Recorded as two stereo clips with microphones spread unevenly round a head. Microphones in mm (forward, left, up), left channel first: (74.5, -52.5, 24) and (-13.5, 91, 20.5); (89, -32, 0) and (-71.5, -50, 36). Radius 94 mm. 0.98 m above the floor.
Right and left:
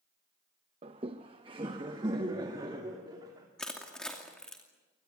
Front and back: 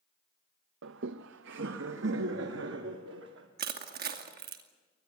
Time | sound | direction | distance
0.8 | laughter | straight behind | 0.6 m
3.6 | crushing | 145° right | 2.5 m